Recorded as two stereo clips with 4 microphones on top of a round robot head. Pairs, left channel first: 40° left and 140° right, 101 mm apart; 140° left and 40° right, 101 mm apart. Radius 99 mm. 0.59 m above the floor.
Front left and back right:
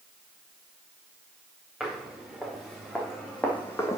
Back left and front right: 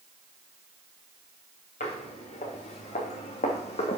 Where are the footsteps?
135° left, 4 m; by 4.0 s 105° left, 1.7 m.